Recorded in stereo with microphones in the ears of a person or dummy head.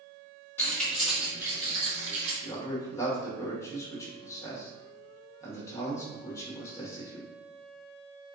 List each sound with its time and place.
0.6 s keys jangling: 10° left (ahead or behind), 1.4 m; by 2.3 s 45° right (ahead or behind), 1.6 m
2.4 s a man speaking: 15° left (ahead or behind), 1.2 m